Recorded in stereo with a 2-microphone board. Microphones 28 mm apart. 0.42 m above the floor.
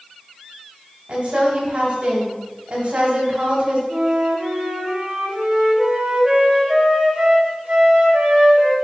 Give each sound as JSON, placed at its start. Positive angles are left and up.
{"t": 1.1, "sound": "a woman speaking", "side_deg": -50, "distance_m": 3.0}
{"t": 3.9, "sound": "a flute", "side_deg": -40, "distance_m": 1.9}